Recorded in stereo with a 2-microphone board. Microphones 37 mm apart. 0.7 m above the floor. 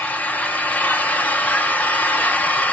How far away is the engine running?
About 1.2 m.